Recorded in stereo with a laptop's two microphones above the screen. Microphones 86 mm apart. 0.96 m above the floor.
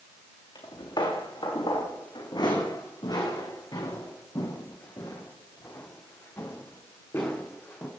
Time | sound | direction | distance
0.6 | footsteps | 70° left (ahead or behind) | 5 m